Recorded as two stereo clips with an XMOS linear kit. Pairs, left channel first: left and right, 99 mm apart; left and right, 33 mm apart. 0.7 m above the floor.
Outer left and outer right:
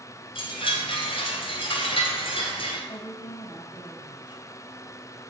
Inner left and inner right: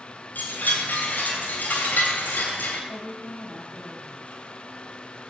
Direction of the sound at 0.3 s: 65° left (ahead or behind).